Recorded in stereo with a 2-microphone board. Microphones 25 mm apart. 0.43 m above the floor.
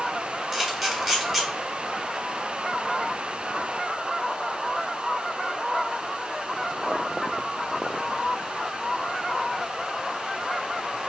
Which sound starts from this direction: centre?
A camera shutter, at 0.5 s.